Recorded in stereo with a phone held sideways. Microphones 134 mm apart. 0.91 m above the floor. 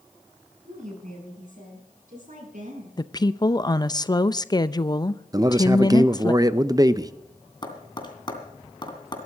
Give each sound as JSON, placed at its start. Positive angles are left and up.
{"t": 0.7, "sound": "a woman speaking", "side_deg": -65, "distance_m": 7.0}
{"t": 3.0, "sound": "a woman speaking", "side_deg": 30, "distance_m": 0.6}
{"t": 5.3, "sound": "a man speaking", "side_deg": -25, "distance_m": 0.6}
{"t": 7.6, "sound": "tapping", "side_deg": 35, "distance_m": 2.5}